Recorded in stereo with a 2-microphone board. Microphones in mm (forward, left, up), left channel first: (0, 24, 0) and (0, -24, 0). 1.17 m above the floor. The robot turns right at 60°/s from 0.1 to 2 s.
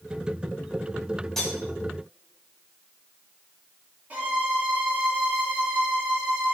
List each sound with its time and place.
1.4 s cutlery clinking: 15° left (ahead or behind), 3.5 m; by 1.6 s centre (ahead or behind), 3.5 m
4.1 s a violin: 35° right (ahead or behind), 3 m